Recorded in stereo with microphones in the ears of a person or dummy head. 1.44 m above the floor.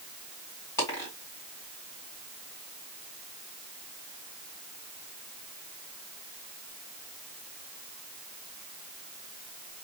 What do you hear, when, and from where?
0.8 s a dropped coin: 15° left (ahead or behind), 1.8 m